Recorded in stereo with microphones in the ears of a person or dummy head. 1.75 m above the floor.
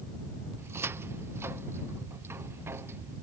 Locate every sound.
0.6 s a cupboard door: 15° right (ahead or behind)